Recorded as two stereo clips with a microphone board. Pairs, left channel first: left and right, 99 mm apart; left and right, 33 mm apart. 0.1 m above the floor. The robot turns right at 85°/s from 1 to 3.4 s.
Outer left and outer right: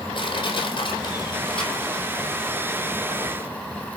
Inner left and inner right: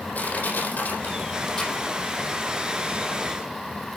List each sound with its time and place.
0.1 s crushing: 55° left (ahead or behind), 5 m; by 2.5 s 60° right (ahead or behind), 5 m